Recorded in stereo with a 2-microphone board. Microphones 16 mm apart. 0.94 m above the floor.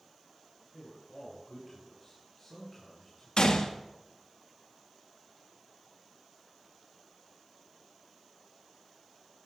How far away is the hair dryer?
No hair dryer in this recording.